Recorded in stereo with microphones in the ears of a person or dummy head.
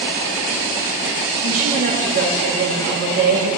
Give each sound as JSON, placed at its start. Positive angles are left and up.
{"t": 1.4, "sound": "a woman speaking", "side_deg": -50, "distance_m": 2.5}